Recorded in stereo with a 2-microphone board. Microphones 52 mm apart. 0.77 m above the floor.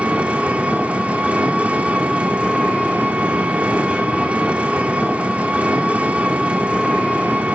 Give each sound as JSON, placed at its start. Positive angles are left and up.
{"t": 0.0, "sound": "an engine running", "side_deg": -25, "distance_m": 1.3}